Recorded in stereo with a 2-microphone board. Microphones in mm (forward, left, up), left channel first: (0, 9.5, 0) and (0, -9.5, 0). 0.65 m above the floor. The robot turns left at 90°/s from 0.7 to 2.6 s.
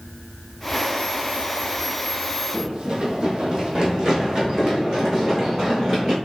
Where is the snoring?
No snoring in this recording.